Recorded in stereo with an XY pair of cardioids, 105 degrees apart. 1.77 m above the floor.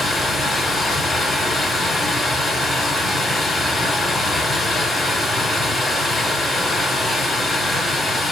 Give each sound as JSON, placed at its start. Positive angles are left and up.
{"t": 0.0, "sound": "running water", "azimuth_deg": 35, "distance_m": 2.0}